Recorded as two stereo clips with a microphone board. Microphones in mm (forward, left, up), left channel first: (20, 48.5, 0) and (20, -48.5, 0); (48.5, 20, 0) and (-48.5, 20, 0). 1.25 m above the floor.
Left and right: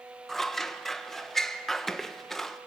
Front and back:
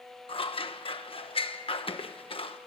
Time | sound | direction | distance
0.3 | scissors | 5° left | 1.2 m